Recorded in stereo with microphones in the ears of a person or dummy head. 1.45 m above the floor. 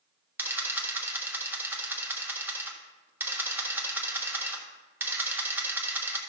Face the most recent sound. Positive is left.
turn(degrees=-10)  # may be behind; listen again after turning